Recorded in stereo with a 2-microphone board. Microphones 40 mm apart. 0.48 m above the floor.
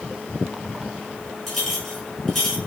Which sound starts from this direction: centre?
A clink, at 1.5 s.